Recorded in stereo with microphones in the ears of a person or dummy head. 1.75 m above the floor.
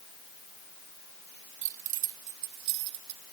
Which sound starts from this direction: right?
Keys jangling, at 1.6 s.